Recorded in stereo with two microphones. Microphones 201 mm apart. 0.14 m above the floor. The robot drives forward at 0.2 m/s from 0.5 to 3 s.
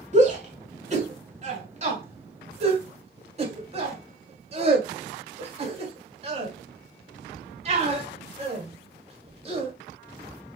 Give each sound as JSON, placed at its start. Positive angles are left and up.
{"t": 0.1, "sound": "a shout", "side_deg": -40, "distance_m": 1.3}